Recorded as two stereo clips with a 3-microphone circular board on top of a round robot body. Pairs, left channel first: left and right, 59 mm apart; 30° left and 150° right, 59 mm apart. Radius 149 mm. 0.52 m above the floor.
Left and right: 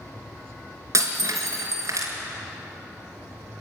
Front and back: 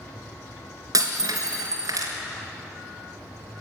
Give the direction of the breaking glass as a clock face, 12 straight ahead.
4 o'clock.